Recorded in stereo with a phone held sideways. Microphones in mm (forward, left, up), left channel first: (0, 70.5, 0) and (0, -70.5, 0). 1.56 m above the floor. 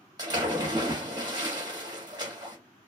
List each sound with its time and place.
0.2 s a splash: 30° right (ahead or behind), 1.1 m